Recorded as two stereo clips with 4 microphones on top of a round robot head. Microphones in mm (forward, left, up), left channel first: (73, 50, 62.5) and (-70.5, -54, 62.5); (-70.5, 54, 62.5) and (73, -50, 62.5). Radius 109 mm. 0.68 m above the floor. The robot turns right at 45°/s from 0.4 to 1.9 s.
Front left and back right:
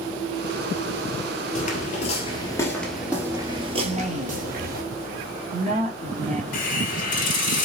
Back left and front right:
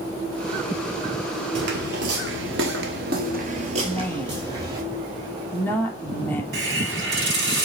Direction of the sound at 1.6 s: 15° right.